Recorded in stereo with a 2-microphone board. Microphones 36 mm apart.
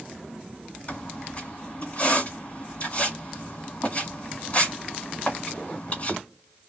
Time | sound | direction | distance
0.9 | a squeak | 40° left (ahead or behind) | 1.5 m